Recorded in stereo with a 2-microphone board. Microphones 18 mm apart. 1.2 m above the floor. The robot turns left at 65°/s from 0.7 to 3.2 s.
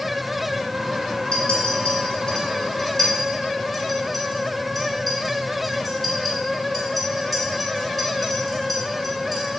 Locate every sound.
1.3 s a clink: 60° left (ahead or behind), 2 m; by 9.5 s 5° right (ahead or behind), 2 m